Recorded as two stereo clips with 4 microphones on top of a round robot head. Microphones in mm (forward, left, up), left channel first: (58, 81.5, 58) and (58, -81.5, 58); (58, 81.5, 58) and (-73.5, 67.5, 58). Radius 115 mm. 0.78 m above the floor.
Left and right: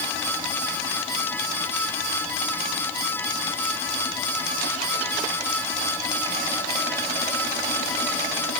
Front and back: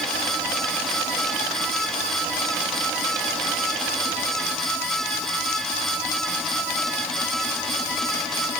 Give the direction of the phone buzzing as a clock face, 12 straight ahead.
I don't hear a phone buzzing.